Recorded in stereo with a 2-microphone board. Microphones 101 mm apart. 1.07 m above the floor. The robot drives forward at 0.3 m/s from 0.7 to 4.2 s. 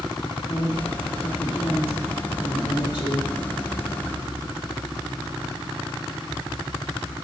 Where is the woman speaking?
65° left (ahead or behind), 1.6 m; by 3.3 s 45° left (ahead or behind), 2 m.